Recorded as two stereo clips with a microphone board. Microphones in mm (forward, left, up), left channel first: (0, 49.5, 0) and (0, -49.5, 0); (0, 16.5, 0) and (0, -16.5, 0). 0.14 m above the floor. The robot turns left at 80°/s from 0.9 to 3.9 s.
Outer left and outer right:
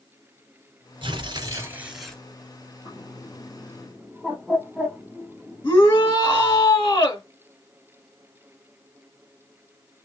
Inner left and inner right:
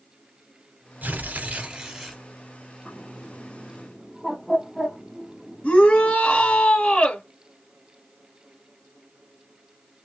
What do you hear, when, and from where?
1.0 s tearing paper: 100° right, 1.9 m; by 2.2 s 165° left, 1.9 m
2.9 s a bird: 60° left (ahead or behind), 2.5 m; by 6.2 s 15° right (ahead or behind), 2.5 m
5.6 s a shout: 25° left (ahead or behind), 1.7 m